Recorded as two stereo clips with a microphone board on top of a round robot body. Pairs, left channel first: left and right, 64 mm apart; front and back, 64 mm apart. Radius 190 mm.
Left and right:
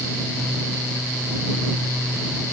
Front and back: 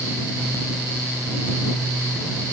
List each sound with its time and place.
Only background noise.